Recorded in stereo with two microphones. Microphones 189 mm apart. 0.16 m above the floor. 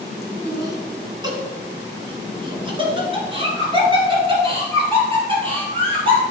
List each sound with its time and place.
0.5 s laughter: 15° right (ahead or behind), 1.3 m; by 6.2 s 30° right (ahead or behind), 3.5 m